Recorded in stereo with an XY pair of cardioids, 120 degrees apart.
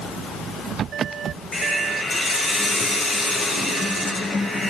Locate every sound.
1.5 s a hiss: 40° left, 8 m